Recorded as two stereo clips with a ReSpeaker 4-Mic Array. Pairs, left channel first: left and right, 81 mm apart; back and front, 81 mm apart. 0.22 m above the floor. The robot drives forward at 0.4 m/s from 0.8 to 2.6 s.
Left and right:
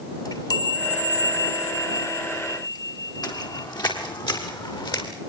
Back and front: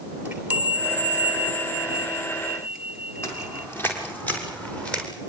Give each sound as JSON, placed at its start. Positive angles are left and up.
{"t": 0.2, "sound": "a chime", "azimuth_deg": 70, "distance_m": 3.5}
{"t": 3.2, "sound": "footsteps", "azimuth_deg": 125, "distance_m": 7.5}